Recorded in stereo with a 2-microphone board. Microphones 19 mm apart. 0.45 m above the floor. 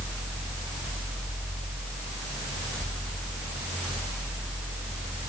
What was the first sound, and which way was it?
Only background noise.